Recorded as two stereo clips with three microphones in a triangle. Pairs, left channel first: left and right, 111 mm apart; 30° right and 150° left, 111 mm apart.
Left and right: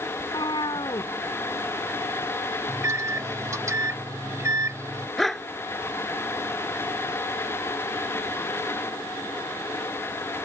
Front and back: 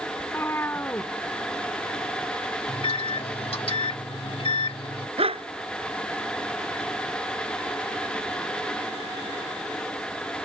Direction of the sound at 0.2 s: 40° left.